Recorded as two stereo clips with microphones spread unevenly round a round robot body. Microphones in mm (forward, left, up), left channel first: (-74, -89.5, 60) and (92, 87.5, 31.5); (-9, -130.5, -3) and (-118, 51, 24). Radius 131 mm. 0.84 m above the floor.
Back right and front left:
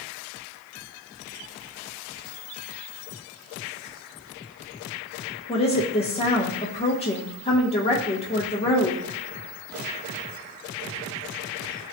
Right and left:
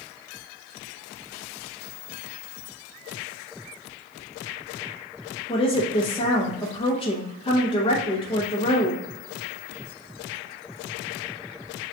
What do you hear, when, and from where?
5.5 s a woman speaking: 75° right, 0.7 m